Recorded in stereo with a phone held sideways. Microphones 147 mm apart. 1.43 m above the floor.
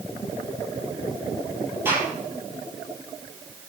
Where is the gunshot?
15° right (ahead or behind), 9 m.